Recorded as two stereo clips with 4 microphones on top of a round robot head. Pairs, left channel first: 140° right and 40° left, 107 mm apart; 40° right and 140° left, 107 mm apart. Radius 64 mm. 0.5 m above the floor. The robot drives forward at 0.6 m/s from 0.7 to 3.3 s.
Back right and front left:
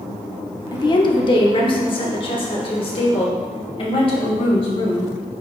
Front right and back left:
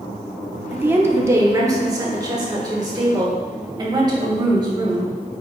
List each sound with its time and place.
0.7 s a woman speaking: 155° right, 0.9 m; by 5.1 s 175° right, 2 m